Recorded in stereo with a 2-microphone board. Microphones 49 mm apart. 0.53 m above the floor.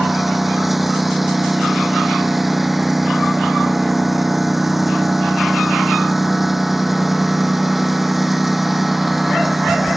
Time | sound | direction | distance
0.0 | a lawn mower | 5° right (ahead or behind) | ?